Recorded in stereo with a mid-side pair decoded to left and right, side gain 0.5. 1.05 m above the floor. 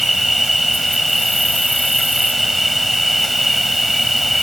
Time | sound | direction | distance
0.0 | an insect | straight ahead | ?